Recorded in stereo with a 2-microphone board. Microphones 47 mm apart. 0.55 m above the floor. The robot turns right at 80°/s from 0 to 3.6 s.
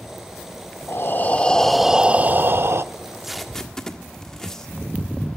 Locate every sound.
0.9 s breathing: 110° left, 0.6 m; by 2.8 s 95° right, 0.6 m
2.9 s tape being pulled: 20° right (ahead or behind), 1.5 m; by 4.7 s 10° left (ahead or behind), 1.5 m